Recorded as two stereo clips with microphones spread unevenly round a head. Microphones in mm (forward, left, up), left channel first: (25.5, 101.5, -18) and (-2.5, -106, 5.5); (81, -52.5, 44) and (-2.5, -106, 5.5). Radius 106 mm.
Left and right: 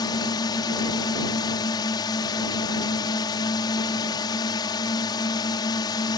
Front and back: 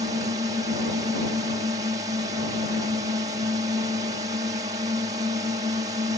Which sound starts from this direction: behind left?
A drone, at 0.0 s.